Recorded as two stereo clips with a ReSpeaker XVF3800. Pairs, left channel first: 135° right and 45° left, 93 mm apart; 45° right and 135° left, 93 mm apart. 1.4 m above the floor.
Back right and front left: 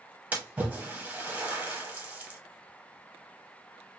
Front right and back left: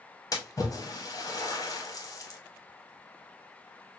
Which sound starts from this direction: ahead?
A splash, at 0.3 s.